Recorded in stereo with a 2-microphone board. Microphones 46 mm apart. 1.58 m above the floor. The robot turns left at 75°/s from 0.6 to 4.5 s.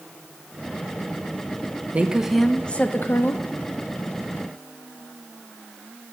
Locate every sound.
1.9 s a woman speaking: 145° right, 0.5 m; by 3.4 s 100° left, 0.5 m